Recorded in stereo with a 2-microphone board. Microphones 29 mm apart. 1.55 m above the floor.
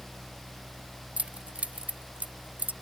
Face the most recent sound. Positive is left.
turn(degrees=-65)  # may be behind; listen again after turning